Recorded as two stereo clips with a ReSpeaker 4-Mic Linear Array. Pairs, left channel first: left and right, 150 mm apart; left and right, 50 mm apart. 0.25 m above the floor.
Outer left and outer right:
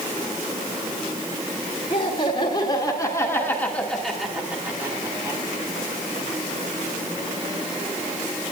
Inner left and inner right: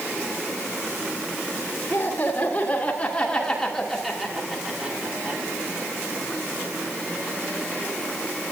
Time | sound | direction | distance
1.9 | laughter | 40° left (ahead or behind) | 3.5 m